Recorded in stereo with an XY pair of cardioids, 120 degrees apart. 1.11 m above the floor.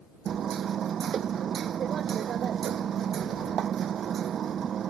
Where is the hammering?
50° right.